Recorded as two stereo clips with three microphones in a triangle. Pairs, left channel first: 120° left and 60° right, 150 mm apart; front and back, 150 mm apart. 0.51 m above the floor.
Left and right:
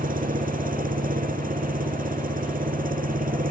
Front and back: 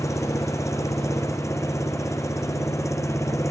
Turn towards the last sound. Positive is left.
turn(degrees=-70)